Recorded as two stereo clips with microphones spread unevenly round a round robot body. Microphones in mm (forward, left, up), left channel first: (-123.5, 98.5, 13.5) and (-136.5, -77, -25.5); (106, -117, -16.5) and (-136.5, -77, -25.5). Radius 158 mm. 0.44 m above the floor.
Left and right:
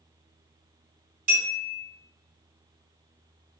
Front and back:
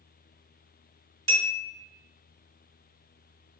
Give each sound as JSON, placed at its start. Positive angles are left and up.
{"t": 1.3, "sound": "a bell", "azimuth_deg": -85, "distance_m": 1.8}